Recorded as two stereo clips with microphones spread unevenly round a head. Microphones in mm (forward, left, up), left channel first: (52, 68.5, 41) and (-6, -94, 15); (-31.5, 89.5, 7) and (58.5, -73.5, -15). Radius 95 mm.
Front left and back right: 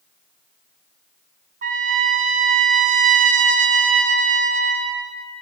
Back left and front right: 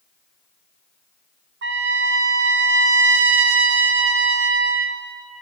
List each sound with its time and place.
1.6 s a trumpet: 70° right, 0.6 m